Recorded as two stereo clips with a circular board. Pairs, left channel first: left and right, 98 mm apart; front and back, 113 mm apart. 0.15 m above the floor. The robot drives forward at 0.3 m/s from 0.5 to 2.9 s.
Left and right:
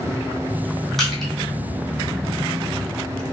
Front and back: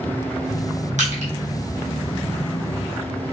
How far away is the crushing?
About 1.3 m.